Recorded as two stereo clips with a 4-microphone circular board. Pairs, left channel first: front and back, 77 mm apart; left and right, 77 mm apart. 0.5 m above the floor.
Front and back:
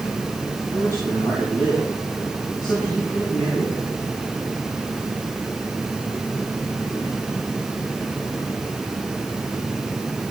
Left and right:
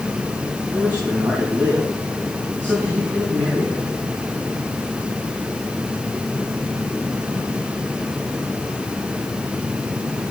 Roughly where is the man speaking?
Ahead.